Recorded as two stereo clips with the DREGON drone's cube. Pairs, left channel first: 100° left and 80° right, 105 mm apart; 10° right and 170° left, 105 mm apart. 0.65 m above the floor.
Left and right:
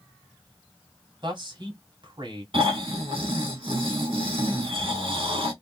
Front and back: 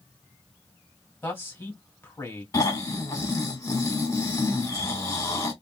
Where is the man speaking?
70° right, 1.7 m.